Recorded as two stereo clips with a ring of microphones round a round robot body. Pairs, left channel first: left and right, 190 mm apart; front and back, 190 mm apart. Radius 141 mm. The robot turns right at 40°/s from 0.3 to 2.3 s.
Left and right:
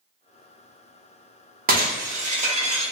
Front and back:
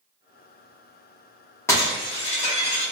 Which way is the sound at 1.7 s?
75° right.